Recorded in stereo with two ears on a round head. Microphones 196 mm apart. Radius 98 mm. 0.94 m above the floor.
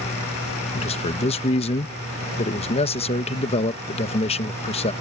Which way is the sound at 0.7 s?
30° left (ahead or behind).